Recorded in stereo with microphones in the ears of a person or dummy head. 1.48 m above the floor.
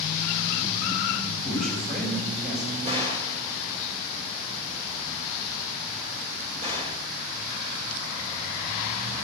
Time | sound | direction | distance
1.4 | a man speaking | 50° right (ahead or behind) | 6.5 m
2.9 | a gunshot | 35° right (ahead or behind) | 3 m